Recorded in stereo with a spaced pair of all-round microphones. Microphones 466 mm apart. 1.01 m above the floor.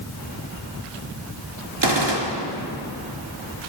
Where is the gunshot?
65° right (ahead or behind), 2.5 m.